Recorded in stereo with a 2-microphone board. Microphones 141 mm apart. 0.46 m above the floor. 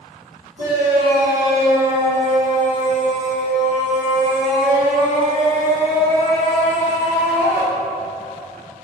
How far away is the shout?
About 1.3 m.